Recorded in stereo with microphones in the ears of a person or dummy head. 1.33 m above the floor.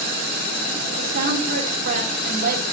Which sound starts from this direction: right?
A woman speaking, at 1.0 s.